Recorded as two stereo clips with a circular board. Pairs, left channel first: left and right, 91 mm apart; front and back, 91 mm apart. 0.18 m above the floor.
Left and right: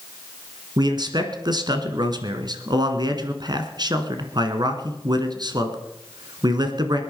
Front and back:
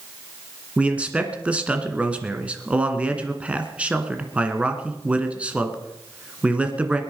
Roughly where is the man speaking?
Right.